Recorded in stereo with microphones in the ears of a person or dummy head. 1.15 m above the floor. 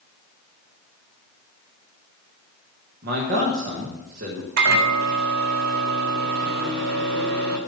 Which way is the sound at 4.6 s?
70° right (ahead or behind).